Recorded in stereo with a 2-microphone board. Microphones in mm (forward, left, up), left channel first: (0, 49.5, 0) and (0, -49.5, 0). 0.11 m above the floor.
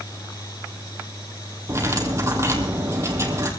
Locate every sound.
1.7 s cutlery clinking: 30° right (ahead or behind), 2.5 m